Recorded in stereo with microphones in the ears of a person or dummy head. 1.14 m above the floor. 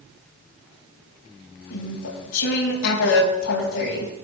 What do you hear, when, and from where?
1.7 s chewing: 80° left, 5.5 m